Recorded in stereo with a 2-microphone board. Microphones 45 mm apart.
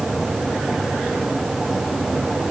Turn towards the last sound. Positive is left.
No sound to turn to.